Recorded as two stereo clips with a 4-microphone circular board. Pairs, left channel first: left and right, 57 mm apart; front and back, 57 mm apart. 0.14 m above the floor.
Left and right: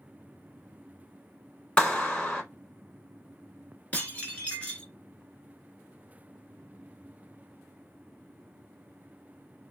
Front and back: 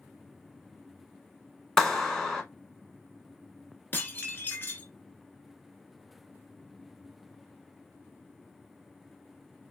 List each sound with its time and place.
1.8 s a clap: 70° left, 0.9 m
3.9 s dishes clattering: 35° left, 1.0 m